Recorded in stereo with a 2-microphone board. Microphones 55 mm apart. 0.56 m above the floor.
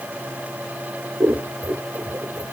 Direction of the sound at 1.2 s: 55° right (ahead or behind).